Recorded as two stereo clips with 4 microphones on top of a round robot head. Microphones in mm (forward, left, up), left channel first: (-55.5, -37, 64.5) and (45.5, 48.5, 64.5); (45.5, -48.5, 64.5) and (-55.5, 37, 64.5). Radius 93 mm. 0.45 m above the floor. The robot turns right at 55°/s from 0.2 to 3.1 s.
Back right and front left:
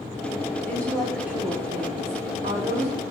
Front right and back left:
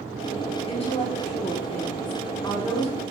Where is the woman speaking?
75° right, 1.2 m; by 2.9 s 50° left, 1.2 m.